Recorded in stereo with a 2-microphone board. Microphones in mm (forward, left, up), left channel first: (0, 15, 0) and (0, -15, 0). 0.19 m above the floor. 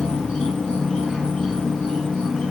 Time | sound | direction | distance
0.0 | an insect | 25° left (ahead or behind) | 0.8 m